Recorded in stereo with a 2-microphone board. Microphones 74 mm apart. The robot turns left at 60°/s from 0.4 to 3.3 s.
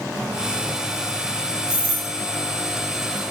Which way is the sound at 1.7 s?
10° right (ahead or behind).